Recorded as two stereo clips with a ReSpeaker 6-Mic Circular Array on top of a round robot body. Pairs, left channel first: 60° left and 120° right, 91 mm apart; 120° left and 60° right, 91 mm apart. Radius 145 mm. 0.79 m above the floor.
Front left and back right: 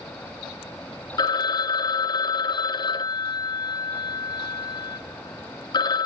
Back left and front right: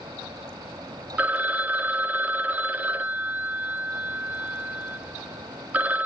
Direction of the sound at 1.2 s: 15° left.